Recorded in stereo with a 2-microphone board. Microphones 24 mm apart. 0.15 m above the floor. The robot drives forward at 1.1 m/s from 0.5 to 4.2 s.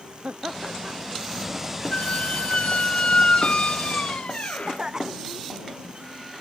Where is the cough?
25° right (ahead or behind).